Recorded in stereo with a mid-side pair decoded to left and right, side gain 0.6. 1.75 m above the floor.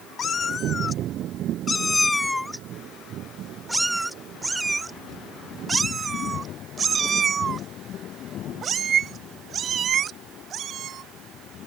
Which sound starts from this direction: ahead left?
A cat meowing, at 0.2 s.